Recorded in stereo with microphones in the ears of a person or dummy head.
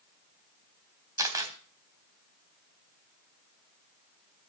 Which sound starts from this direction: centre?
A camera shutter, at 1.2 s.